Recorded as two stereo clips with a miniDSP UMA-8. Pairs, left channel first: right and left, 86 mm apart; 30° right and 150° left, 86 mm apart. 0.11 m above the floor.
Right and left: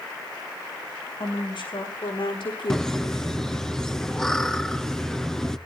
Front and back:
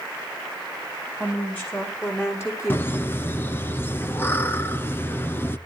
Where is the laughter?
15° right, 1.2 m.